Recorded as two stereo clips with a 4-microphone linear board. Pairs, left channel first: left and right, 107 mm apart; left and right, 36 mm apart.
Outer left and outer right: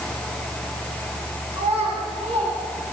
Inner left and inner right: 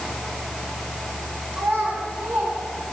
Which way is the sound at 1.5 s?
85° right.